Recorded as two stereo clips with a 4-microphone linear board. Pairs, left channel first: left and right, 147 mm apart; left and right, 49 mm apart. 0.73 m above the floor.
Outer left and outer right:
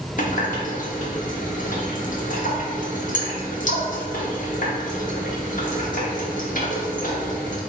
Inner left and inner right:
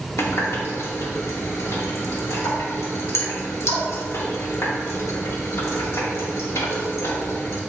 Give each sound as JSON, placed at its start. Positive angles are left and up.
{"t": 0.2, "sound": "a running tap", "side_deg": 65, "distance_m": 1.1}